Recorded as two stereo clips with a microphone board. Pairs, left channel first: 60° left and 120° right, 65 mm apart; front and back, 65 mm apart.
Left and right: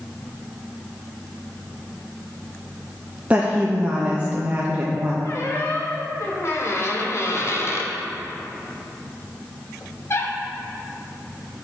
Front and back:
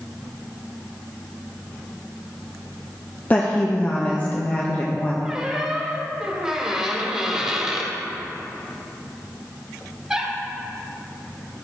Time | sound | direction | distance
3.3 | a woman speaking | 55° right | 0.7 m
5.2 | a squeak | 105° left | 1.1 m